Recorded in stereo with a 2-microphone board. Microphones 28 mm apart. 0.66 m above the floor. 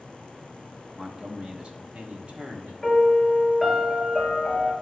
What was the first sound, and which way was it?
A man speaking, 25° right (ahead or behind).